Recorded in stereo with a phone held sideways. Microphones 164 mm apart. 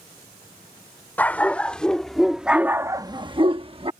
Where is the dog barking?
10° left (ahead or behind); by 3.9 s 35° right (ahead or behind).